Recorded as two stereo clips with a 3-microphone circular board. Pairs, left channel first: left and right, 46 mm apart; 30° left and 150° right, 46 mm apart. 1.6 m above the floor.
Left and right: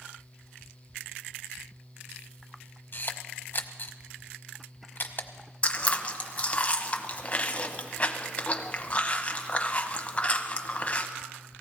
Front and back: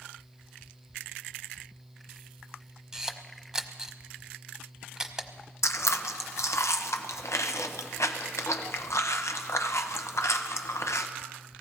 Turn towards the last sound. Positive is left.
turn(degrees=25)